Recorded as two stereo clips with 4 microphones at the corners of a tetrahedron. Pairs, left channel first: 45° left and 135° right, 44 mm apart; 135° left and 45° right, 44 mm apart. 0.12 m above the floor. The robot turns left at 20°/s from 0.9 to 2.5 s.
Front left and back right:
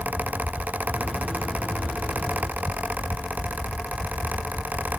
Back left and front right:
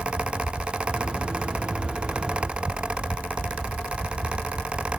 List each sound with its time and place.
Only background noise.